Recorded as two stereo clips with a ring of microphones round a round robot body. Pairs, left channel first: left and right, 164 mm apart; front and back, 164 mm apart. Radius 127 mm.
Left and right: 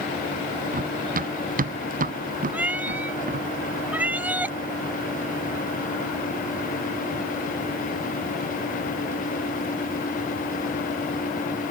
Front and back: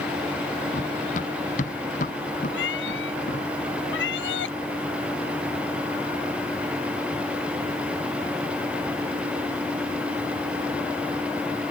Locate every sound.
0.7 s running footsteps: 60° right; by 3.5 s 55° right
2.5 s a cat meowing: 10° right